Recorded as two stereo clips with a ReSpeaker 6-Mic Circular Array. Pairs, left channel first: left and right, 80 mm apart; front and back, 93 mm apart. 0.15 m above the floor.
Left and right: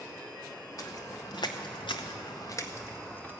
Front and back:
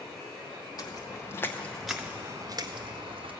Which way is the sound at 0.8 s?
45° left.